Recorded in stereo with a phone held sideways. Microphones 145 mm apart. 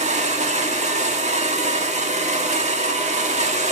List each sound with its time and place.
0.0 s a machine running: 50° right (ahead or behind), 1.7 m